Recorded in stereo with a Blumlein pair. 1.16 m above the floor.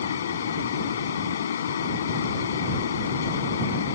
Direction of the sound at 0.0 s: 65° left.